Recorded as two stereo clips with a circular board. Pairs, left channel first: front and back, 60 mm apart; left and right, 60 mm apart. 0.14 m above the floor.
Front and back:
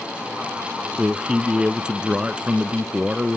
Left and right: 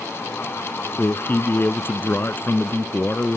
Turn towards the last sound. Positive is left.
turn(degrees=110)